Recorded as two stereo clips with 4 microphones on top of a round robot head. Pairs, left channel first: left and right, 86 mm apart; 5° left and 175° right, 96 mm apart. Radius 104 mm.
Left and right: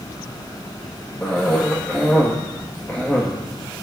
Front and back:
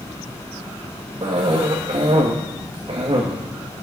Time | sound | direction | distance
1.2 | a cough | 160° left | 1.8 m